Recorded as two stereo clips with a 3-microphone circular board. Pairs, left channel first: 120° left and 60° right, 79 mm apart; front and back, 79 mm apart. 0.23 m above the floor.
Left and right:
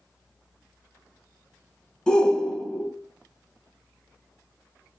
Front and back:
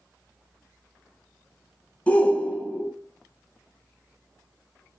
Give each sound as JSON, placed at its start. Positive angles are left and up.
{"t": 2.1, "sound": "a shout", "azimuth_deg": 50, "distance_m": 1.1}